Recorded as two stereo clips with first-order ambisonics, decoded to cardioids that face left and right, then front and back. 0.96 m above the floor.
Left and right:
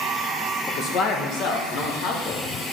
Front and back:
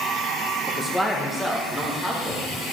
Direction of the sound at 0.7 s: 95° left.